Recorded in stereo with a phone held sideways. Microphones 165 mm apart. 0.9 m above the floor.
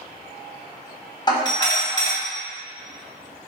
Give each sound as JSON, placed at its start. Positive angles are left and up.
{"t": 1.3, "sound": "a doorbell", "side_deg": 25, "distance_m": 1.4}